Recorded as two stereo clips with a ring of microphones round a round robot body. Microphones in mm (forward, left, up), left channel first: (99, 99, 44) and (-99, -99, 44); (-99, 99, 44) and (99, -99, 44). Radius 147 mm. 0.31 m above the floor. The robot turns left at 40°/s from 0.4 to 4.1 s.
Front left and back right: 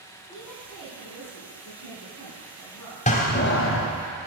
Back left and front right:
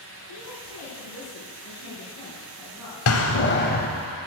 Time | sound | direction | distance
0.3 | a woman speaking | 140° left | 4 m
3.1 | a door slam | 110° left | 1.4 m